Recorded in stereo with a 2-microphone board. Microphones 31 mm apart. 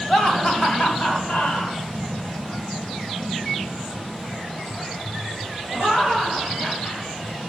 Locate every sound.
0.1 s laughter: 25° left (ahead or behind), 1.3 m; by 7.1 s 75° left (ahead or behind), 6.5 m